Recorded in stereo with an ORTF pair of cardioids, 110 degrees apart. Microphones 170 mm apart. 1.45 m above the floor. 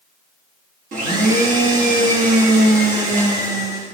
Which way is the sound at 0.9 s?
55° right.